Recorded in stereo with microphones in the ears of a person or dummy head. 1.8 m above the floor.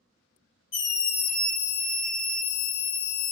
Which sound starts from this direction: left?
A scream, at 0.7 s.